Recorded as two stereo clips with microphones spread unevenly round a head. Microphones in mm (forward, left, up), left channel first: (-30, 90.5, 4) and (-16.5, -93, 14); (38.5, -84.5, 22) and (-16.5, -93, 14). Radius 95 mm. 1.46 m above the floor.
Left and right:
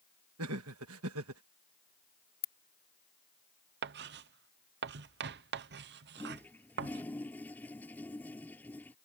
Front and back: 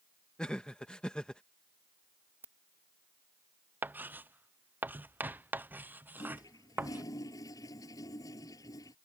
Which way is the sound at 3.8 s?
115° right.